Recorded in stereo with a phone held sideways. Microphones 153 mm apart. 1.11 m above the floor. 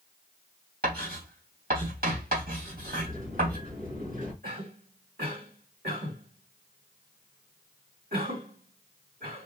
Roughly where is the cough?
Right.